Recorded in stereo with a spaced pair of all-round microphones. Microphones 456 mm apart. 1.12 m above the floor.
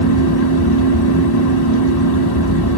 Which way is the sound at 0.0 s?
55° left (ahead or behind).